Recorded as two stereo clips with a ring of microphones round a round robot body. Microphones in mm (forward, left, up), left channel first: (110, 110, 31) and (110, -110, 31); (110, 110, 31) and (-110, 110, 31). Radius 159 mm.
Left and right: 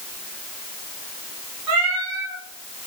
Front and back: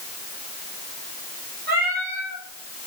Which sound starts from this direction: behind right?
A cat meowing, at 1.7 s.